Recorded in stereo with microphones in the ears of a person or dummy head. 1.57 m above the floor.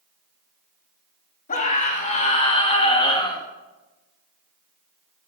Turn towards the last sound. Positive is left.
turn(degrees=25)  # may be behind; listen again after turning